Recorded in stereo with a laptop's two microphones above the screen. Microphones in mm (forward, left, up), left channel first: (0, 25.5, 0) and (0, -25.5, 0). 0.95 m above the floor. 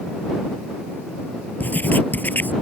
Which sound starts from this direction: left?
Writing, at 1.6 s.